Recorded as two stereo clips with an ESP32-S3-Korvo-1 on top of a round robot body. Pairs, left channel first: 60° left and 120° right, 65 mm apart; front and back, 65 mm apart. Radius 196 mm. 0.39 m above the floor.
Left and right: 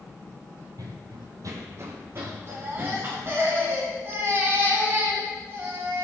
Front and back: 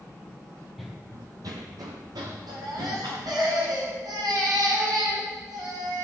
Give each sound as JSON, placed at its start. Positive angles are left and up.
{"t": 0.8, "sound": "running footsteps", "azimuth_deg": -90, "distance_m": 0.7}
{"t": 2.5, "sound": "a baby crying", "azimuth_deg": -170, "distance_m": 3.0}